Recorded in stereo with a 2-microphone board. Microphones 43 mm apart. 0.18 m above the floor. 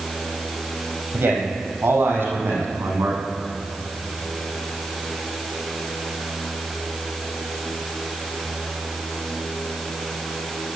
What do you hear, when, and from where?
1.1 s a man speaking: 65° right (ahead or behind), 6 m